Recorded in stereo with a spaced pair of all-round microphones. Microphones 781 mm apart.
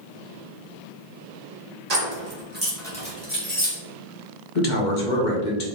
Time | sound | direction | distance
1.9 | keys jangling | 55° right (ahead or behind) | 1.2 m
4.5 | a man speaking | 65° left (ahead or behind) | 1.2 m